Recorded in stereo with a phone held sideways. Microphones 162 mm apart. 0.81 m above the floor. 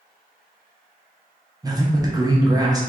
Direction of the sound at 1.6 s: 25° right (ahead or behind).